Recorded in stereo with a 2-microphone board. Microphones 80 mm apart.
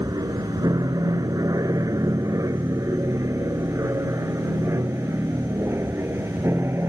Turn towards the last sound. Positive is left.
turn(degrees=-30)  # may be behind; listen again after turning